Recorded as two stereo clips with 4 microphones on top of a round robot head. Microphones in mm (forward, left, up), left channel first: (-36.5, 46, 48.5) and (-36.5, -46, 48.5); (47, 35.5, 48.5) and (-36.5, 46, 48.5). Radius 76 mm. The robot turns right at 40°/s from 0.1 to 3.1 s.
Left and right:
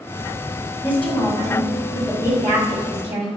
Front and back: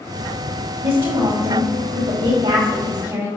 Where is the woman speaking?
155° left, 3 m; by 3.3 s 115° right, 3 m.